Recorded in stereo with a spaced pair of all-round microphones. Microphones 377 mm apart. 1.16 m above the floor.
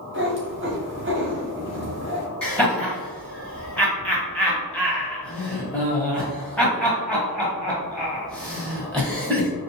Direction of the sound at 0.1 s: 30° right (ahead or behind).